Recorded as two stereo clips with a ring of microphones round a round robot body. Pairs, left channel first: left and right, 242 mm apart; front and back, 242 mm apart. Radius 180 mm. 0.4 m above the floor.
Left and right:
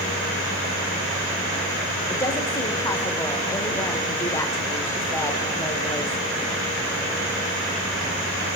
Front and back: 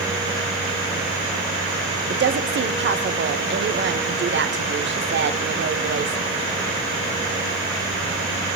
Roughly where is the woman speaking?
Behind.